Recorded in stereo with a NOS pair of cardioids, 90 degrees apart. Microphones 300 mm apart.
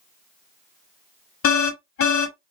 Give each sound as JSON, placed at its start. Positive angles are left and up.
{"t": 1.4, "sound": "an alarm", "azimuth_deg": 50, "distance_m": 1.2}